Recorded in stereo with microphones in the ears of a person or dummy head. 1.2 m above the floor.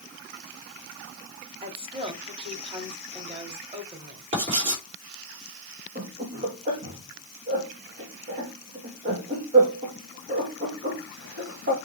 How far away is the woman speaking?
About 2 m.